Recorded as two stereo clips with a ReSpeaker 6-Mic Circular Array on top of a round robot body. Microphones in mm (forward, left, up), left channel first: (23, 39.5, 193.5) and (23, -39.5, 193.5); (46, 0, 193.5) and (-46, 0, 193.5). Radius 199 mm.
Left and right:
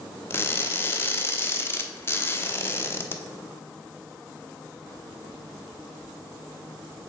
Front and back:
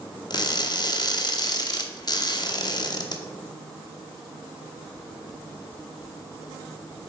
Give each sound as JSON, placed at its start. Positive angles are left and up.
{"t": 0.3, "sound": "crushing", "azimuth_deg": 35, "distance_m": 0.8}